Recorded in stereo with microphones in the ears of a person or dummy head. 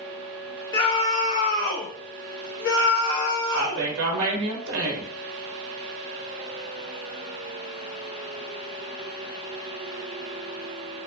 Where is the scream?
20° left (ahead or behind), 1.3 m; by 3.9 s 90° left, 1.9 m.